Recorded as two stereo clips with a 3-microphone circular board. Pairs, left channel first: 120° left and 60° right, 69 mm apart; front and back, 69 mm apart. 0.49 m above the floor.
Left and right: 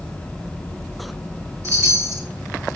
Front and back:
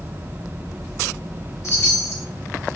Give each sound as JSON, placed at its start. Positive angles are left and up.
{"t": 1.6, "sound": "a chime", "azimuth_deg": -30, "distance_m": 2.0}